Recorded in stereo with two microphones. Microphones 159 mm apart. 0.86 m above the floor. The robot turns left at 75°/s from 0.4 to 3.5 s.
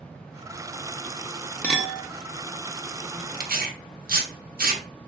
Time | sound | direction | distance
1.6 | a clink | 10° left (ahead or behind) | 0.6 m
3.4 | tearing paper | 70° right (ahead or behind) | 0.6 m